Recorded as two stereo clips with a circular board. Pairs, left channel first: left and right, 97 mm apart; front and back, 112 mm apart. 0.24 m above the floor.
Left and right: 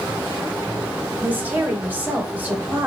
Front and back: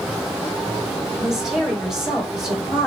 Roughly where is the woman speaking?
Right.